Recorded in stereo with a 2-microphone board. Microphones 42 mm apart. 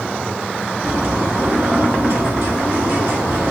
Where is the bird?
65° right (ahead or behind), 2.5 m.